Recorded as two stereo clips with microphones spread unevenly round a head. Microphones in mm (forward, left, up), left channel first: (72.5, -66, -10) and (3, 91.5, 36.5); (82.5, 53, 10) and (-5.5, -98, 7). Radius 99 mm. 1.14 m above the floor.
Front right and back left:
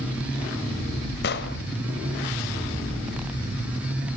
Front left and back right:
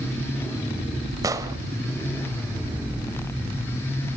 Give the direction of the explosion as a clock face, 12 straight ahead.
2 o'clock.